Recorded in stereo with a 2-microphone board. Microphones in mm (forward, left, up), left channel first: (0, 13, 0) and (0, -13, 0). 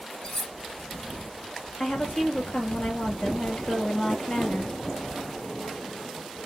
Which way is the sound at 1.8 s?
75° left (ahead or behind).